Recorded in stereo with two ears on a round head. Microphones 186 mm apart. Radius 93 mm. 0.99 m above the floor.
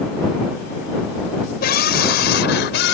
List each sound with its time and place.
1.6 s a scream: 50° left (ahead or behind); by 3.0 s 60° left (ahead or behind)